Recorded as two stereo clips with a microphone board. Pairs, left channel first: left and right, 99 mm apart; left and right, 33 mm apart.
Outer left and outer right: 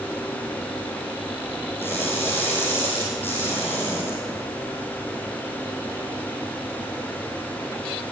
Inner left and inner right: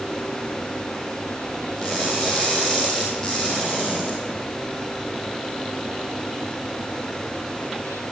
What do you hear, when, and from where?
1.8 s crushing: 20° left (ahead or behind), 3.5 m